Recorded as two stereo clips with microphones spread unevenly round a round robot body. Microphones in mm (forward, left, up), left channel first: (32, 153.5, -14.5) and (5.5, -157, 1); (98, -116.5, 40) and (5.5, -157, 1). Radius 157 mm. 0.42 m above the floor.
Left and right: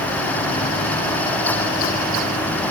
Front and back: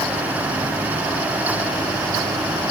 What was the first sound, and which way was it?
Only background noise.